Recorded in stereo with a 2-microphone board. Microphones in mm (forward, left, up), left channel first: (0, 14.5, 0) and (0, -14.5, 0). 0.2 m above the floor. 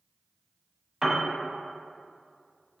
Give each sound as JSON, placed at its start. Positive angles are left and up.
{"t": 1.0, "sound": "a piano", "side_deg": -20, "distance_m": 0.5}